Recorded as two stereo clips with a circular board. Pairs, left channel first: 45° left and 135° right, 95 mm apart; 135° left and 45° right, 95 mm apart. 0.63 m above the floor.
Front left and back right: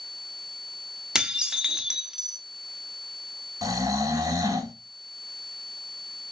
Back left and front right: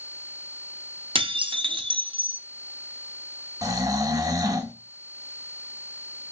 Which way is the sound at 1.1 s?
55° right.